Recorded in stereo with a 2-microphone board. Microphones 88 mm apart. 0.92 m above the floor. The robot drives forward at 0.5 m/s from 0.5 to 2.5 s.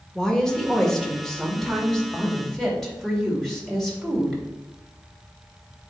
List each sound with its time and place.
0.1 s a woman speaking: 5° left (ahead or behind), 1.4 m